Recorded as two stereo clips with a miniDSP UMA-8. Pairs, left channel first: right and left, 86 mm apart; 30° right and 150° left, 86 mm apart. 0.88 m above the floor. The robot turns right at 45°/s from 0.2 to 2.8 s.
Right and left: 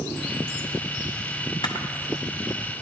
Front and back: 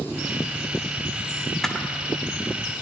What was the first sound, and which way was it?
A camera shutter, 120° right.